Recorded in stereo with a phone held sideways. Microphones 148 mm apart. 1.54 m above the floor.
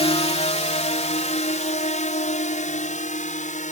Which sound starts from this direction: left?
A drone, at 0.0 s.